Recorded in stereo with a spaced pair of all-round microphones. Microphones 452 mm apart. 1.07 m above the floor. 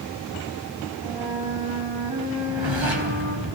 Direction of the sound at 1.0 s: 85° right.